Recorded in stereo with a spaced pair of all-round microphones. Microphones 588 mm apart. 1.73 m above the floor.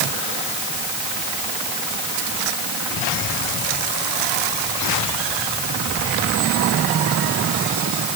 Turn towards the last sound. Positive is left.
No sound to turn to.